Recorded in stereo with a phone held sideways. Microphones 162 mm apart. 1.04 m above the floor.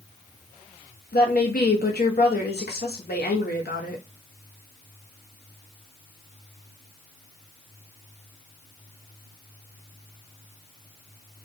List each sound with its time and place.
1.1 s a woman speaking: 75° left (ahead or behind), 0.9 m